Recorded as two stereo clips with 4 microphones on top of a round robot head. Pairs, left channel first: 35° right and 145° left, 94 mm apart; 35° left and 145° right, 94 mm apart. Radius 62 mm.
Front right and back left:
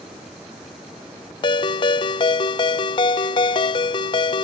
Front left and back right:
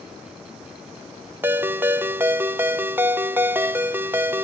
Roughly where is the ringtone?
Right.